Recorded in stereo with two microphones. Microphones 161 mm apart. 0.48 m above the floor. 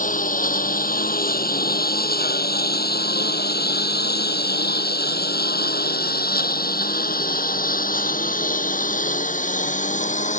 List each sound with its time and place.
0.0 s a lawn mower: 55° left (ahead or behind); by 10.4 s 50° left (ahead or behind)